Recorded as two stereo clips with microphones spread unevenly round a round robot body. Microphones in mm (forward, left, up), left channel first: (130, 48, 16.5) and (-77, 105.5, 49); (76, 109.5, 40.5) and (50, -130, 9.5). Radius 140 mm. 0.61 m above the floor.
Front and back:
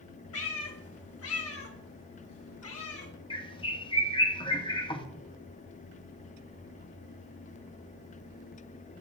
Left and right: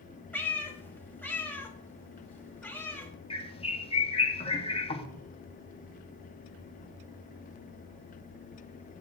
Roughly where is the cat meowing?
Ahead.